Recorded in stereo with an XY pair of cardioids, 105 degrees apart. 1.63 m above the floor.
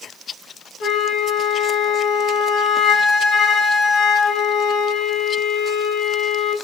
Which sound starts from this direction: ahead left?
A flute, at 0.8 s.